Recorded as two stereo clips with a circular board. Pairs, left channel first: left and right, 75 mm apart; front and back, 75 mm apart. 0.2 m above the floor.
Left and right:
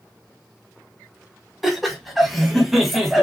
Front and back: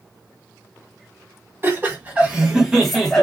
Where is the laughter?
175° right, 1.5 m; by 3.2 s 20° right, 1.3 m.